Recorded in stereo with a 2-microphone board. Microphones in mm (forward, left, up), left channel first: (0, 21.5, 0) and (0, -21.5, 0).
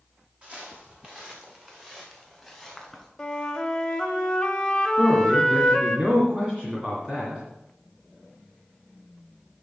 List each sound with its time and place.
0.4 s footsteps: 30° right (ahead or behind), 3 m; by 3.1 s 5° left (ahead or behind), 3 m
3.2 s a flute: 10° left (ahead or behind), 1.2 m
5.0 s a man speaking: 20° right (ahead or behind), 2.5 m